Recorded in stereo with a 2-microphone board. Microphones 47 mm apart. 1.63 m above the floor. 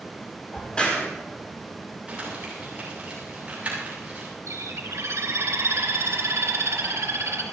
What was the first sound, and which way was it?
A crack, 20° left (ahead or behind).